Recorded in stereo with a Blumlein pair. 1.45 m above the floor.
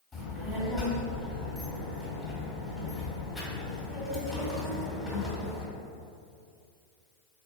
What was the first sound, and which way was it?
A child speaking, 5° left.